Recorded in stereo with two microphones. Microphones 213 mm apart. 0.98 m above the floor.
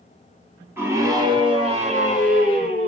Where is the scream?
10° right (ahead or behind), 2 m; by 2.9 s 50° right (ahead or behind), 2.5 m.